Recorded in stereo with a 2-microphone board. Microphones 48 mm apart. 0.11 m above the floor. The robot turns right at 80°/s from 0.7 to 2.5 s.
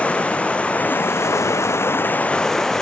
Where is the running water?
25° left, 1.2 m; by 2.8 s 170° left, 1.2 m.